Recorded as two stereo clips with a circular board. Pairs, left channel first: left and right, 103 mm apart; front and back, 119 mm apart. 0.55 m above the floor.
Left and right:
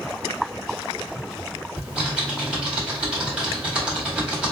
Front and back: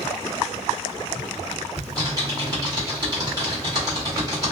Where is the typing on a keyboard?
160° right, 1.5 m.